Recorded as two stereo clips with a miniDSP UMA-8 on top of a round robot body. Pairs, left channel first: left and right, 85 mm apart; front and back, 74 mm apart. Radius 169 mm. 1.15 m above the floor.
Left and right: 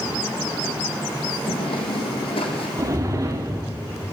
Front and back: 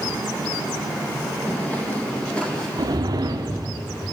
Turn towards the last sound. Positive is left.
turn(degrees=-145)